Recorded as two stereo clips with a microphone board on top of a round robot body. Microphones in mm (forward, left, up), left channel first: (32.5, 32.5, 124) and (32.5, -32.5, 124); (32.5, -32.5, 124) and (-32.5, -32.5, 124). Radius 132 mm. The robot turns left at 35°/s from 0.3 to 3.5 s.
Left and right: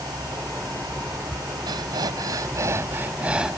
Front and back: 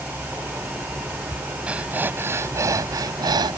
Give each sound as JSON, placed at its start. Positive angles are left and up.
{"t": 1.7, "sound": "breathing", "azimuth_deg": -105}